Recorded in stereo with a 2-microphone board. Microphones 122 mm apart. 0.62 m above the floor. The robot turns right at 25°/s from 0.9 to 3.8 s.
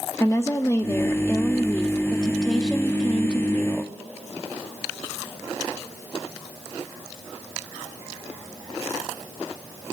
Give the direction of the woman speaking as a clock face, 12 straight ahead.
7 o'clock.